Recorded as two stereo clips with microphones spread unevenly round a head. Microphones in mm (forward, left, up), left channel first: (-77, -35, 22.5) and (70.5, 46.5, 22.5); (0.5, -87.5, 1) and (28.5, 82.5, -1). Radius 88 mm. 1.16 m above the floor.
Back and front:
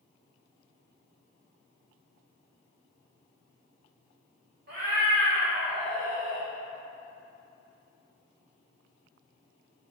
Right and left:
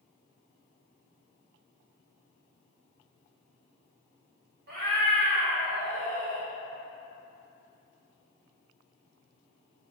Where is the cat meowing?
60° left, 0.9 m; by 6.5 s 155° left, 0.8 m.